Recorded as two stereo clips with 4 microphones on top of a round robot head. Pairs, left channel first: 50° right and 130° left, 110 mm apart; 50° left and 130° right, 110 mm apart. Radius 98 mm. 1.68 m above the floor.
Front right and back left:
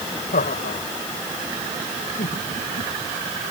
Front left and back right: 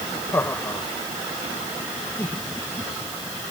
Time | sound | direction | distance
0.3 | laughter | 25° right | ?